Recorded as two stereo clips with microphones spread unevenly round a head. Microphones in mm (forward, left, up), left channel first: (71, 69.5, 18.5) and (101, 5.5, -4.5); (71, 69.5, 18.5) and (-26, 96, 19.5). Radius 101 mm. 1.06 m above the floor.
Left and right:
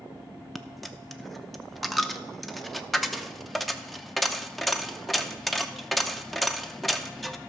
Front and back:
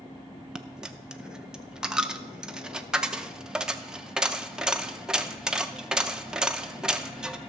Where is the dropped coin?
100° left, 0.5 m.